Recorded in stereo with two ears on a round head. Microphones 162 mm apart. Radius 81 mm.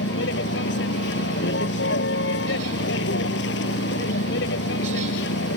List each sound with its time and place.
0.0 s a vehicle: 65° left (ahead or behind)